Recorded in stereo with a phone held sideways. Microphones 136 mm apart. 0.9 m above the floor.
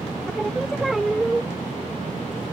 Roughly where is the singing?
Centre.